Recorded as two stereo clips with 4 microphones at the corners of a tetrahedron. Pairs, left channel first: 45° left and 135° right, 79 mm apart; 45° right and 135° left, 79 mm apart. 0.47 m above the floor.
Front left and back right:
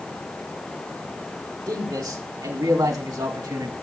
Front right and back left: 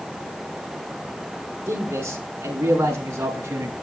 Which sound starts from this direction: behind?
A man speaking, at 1.7 s.